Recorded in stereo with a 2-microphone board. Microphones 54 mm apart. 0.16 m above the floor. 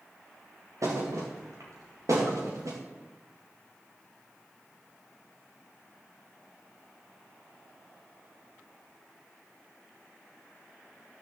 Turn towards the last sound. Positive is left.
turn(degrees=-85)